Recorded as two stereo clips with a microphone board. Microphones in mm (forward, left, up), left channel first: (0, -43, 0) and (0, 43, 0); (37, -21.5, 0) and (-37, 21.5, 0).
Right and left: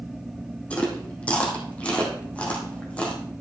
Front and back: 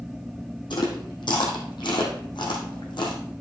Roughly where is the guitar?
No guitar in this recording.